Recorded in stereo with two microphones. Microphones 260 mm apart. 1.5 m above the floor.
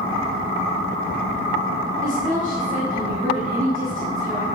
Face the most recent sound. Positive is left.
turn(degrees=-30)  # may be behind; listen again after turning